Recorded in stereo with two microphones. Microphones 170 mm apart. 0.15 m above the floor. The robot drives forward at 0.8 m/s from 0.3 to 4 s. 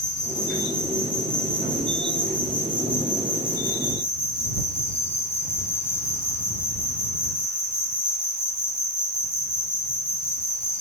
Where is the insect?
5° left (ahead or behind), 6 m; by 10.8 s 15° left (ahead or behind), 3 m.